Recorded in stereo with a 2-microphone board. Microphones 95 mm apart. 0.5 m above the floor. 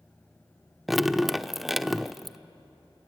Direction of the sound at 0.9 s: Centre (ahead or behind).